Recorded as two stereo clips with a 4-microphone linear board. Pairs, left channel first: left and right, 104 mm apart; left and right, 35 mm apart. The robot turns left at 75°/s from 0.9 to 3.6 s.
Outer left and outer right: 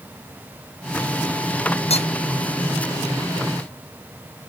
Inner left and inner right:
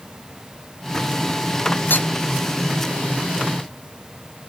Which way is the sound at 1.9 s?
75° left (ahead or behind).